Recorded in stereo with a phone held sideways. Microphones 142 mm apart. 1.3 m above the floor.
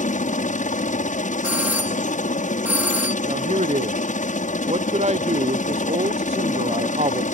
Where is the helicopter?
65° left (ahead or behind).